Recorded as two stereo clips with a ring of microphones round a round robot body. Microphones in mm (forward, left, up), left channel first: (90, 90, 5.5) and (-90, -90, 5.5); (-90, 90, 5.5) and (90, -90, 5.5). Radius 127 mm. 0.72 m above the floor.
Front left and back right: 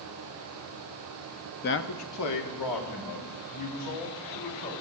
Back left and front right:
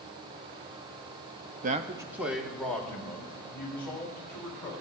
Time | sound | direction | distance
1.6 | a man speaking | straight ahead | 0.6 m